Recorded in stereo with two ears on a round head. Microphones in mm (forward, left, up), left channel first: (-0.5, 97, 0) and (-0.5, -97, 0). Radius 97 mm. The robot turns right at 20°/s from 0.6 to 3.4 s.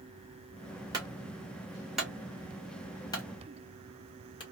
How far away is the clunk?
About 1.1 m.